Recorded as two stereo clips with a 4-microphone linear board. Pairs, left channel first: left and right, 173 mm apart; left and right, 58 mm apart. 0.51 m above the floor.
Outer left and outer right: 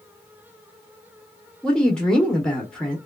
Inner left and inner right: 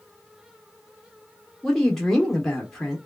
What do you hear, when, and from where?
1.6 s a woman speaking: 5° left (ahead or behind), 0.8 m